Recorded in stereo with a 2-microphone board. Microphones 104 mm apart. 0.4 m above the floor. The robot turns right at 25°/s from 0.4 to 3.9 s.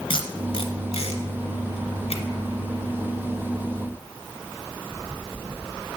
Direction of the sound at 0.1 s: 60° left (ahead or behind).